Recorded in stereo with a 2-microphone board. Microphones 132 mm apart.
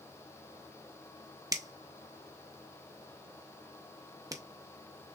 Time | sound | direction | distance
1.5 | a finger snap | 25° right (ahead or behind) | 0.7 m